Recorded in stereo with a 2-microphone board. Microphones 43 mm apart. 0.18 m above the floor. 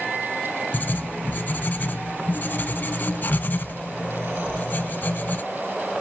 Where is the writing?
40° left (ahead or behind), 0.5 m.